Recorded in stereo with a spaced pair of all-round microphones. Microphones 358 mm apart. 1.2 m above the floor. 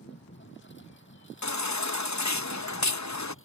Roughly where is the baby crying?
Left.